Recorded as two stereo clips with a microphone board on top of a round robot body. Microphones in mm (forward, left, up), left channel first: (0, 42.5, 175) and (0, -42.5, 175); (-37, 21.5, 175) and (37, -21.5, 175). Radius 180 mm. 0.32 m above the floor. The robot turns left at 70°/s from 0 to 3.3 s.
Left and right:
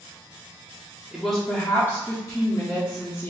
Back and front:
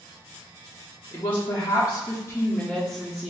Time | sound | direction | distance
1.1 | a woman speaking | 165° right | 1.4 m